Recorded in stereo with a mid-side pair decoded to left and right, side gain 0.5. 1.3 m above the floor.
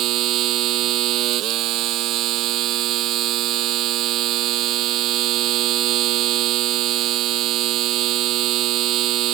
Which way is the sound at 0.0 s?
70° right.